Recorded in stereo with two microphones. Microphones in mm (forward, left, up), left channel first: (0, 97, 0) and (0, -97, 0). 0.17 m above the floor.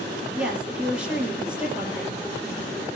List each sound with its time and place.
0.3 s a woman speaking: 5° right (ahead or behind), 5 m